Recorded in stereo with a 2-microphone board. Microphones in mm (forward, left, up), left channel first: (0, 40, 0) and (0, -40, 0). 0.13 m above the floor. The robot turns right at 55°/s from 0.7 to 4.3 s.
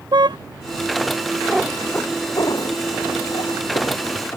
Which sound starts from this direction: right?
A car horn, at 0.1 s.